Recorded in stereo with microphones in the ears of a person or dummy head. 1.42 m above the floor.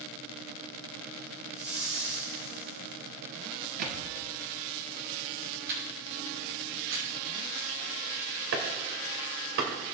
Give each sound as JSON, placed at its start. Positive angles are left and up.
{"t": 1.5, "sound": "a whoosh", "side_deg": -75, "distance_m": 3.0}
{"t": 3.8, "sound": "a thud", "side_deg": -50, "distance_m": 1.5}
{"t": 5.7, "sound": "a camera shutter", "side_deg": -75, "distance_m": 5.0}
{"t": 8.5, "sound": "chopping", "side_deg": -60, "distance_m": 2.0}